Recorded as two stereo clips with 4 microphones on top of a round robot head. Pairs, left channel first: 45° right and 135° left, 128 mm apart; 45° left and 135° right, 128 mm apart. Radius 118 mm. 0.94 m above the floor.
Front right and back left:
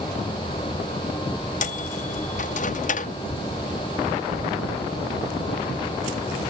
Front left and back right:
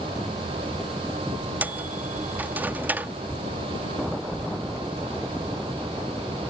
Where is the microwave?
60° right.